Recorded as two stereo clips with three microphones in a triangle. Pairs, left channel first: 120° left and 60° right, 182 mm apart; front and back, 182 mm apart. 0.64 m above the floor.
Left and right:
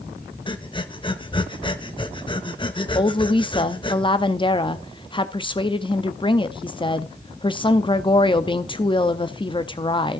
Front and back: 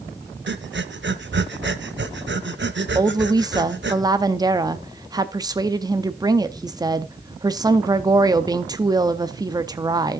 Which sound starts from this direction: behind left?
A woman speaking, at 3.0 s.